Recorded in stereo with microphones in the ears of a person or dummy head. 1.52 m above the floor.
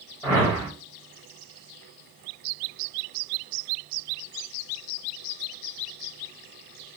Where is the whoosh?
10° left (ahead or behind), 1.4 m.